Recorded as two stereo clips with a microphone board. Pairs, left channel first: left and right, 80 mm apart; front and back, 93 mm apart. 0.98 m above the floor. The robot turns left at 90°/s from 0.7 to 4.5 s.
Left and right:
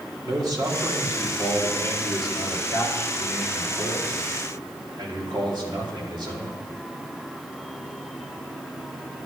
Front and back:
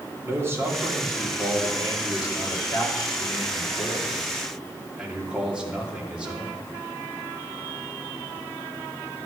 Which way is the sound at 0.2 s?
120° right.